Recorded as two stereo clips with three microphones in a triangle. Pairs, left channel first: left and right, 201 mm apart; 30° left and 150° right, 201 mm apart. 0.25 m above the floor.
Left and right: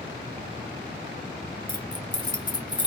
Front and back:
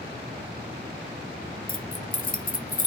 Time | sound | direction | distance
1.7 | keys jangling | 35° left | 1.0 m